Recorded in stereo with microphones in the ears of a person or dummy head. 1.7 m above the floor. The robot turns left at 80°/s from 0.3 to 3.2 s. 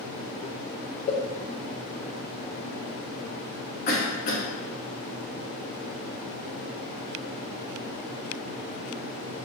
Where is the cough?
60° left (ahead or behind), 1.9 m.